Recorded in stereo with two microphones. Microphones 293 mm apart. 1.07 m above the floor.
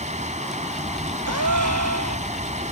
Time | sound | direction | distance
0.0 | running water | 20° right (ahead or behind) | ?
1.3 | a gasp | 70° right (ahead or behind) | ?